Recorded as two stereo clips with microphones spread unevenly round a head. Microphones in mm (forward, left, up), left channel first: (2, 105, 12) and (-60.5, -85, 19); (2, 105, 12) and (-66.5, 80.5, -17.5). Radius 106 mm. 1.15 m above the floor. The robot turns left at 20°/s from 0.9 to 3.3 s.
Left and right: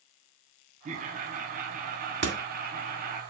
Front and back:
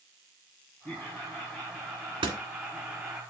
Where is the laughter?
75° right, 0.8 m; by 3.2 s 120° right, 0.8 m.